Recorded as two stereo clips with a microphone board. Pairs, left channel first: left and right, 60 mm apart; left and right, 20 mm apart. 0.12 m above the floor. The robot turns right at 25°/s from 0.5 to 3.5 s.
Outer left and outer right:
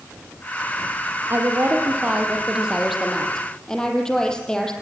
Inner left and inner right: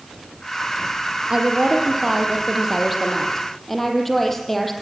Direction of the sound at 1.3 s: 40° right.